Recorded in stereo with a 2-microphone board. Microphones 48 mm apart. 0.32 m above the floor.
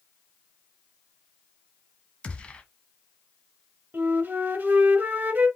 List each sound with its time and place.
2.2 s a gunshot: 25° left (ahead or behind), 0.8 m
3.9 s a flute: 35° right (ahead or behind), 0.9 m